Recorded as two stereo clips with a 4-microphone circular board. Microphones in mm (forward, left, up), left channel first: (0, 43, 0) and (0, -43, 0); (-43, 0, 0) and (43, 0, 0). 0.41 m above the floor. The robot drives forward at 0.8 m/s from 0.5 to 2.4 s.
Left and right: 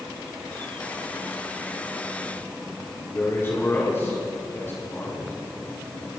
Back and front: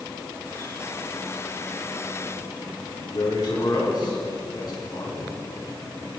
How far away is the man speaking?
About 4 m.